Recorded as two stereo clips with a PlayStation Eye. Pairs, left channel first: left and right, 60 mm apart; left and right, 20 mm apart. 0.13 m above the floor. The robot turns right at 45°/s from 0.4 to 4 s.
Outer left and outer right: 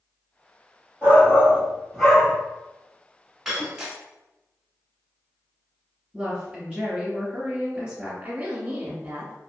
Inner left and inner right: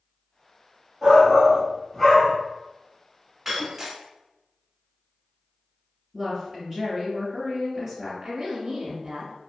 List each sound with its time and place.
1.0 s a shout: 60° right, 1.3 m; by 2.3 s straight ahead, 1.3 m
3.5 s breaking glass: 5° right (ahead or behind), 0.7 m; by 4.0 s 15° right (ahead or behind), 0.7 m
6.1 s a woman speaking: 15° right (ahead or behind), 1.8 m
8.2 s a woman speaking: 20° right (ahead or behind), 1.1 m